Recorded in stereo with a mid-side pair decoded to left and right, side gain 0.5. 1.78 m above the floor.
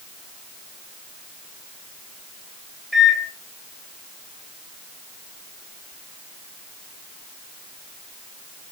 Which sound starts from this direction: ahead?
A microwave, at 2.9 s.